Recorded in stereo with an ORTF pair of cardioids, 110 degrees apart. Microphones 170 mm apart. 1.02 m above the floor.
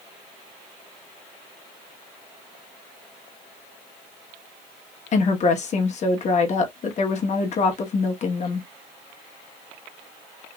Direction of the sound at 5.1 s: 45° left.